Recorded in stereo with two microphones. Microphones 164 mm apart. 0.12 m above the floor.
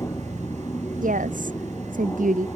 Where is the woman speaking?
50° right (ahead or behind).